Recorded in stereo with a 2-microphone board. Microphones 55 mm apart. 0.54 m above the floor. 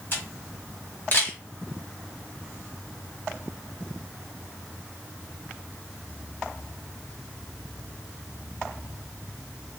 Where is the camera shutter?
40° left (ahead or behind), 1.2 m.